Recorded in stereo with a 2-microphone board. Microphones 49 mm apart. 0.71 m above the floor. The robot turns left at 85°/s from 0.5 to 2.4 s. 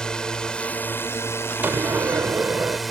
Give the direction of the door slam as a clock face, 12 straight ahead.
2 o'clock.